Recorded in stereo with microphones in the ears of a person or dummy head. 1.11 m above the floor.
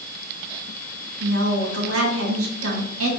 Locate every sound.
1.2 s a woman speaking: 75° right (ahead or behind), 2 m